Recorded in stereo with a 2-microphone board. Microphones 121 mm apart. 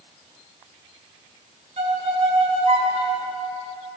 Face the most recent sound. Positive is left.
turn(degrees=-70)  # may be behind; listen again after turning